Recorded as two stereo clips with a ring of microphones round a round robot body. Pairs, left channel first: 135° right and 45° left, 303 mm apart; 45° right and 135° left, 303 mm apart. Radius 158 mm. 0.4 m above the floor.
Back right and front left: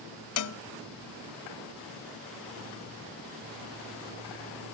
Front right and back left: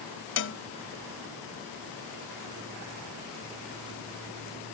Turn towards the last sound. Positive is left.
turn(degrees=-95)